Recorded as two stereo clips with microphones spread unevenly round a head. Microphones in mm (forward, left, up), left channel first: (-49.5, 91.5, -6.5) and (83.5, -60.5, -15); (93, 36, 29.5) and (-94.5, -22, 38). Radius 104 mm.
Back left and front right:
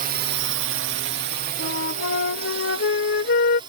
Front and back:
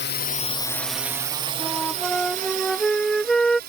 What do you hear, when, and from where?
0.0 s a drone: 5° right; by 3.7 s 120° right
1.6 s a flute: 105° left